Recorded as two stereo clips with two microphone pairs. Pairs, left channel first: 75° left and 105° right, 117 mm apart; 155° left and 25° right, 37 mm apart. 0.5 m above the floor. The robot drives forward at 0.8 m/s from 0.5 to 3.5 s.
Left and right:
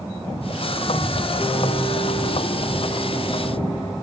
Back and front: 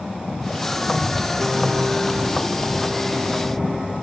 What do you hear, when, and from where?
1.4 s a piano: 40° left, 3.5 m; by 3.9 s 70° left, 2.5 m